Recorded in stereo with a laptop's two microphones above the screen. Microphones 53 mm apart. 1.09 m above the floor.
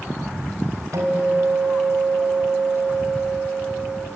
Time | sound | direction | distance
0.9 | a guitar | 80° right | 4 m